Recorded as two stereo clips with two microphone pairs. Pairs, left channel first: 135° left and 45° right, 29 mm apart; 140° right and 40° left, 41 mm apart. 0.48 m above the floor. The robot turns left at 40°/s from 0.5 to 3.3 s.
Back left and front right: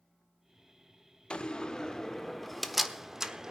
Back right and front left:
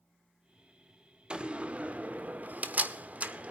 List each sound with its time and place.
1.3 s a door slam: 95° left, 1.1 m; by 3.5 s 15° left, 1.1 m